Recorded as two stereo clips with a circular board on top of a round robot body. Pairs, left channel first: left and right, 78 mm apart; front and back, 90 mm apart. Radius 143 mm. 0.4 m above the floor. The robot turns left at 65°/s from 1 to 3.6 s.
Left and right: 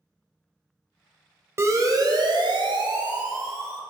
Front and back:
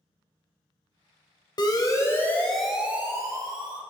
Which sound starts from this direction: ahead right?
A siren, at 1.6 s.